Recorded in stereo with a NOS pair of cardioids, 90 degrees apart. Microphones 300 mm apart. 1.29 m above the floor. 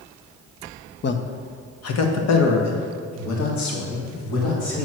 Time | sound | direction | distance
1.0 | a man speaking | 35° left | 0.8 m